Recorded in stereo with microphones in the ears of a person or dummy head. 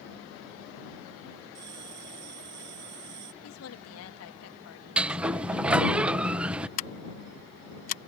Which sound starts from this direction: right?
A bell, at 1.6 s.